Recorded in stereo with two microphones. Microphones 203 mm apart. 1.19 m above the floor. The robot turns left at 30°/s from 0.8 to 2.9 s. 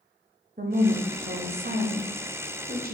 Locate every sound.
0.6 s a woman speaking: 55° right, 0.6 m; by 3.0 s 115° right, 0.6 m